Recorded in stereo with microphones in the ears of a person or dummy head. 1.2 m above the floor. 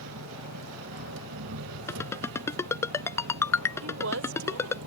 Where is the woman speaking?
85° right.